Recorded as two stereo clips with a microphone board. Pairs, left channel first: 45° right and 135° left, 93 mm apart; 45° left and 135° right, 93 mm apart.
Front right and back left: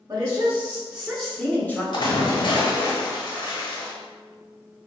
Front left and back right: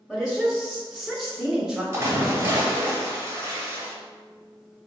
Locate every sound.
0.1 s a woman speaking: 130° left, 1.1 m; by 1.8 s 70° right, 1.0 m
1.9 s a splash: 75° right, 0.9 m